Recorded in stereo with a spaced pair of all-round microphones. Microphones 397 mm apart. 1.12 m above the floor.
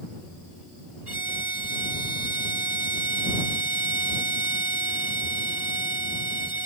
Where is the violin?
75° right (ahead or behind).